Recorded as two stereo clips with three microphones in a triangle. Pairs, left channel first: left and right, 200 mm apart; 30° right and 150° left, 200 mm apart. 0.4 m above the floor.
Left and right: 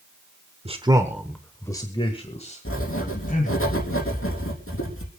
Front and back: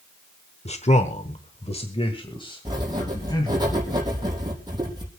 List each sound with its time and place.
0.7 s a man speaking: 60° right, 1.2 m; by 3.6 s 40° left, 3 m
2.6 s writing: 80° left, 4 m